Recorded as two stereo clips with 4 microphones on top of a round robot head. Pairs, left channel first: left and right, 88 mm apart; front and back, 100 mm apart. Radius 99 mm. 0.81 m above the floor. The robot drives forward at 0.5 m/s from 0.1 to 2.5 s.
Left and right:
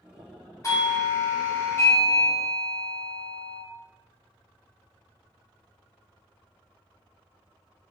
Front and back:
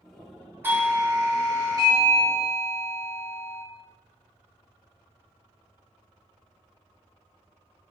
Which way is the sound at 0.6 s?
120° left.